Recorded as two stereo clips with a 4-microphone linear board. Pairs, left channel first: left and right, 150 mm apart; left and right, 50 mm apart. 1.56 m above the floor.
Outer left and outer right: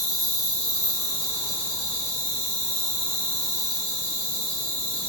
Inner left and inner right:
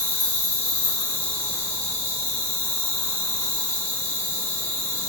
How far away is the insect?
About 1.1 m.